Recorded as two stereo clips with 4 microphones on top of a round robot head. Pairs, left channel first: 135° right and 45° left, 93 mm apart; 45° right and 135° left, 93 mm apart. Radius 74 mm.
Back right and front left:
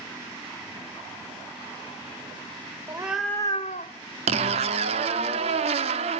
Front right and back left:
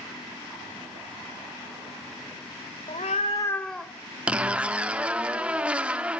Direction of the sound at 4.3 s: 55° left.